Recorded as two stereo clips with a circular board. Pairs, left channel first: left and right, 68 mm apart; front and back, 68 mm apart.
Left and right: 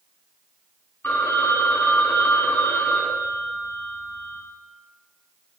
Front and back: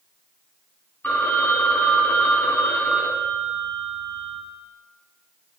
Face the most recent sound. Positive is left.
turn(degrees=50)